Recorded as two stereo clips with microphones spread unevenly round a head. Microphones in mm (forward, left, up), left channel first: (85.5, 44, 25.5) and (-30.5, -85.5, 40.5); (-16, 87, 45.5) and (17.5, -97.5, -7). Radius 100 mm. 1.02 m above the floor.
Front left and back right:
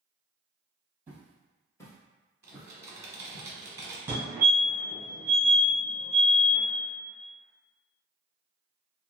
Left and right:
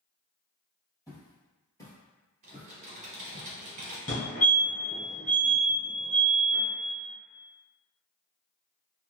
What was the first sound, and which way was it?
Footsteps, 155° left.